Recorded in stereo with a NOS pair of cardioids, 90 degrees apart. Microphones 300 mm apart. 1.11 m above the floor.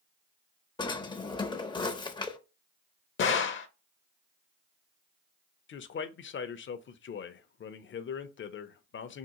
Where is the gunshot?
40° left, 0.6 m.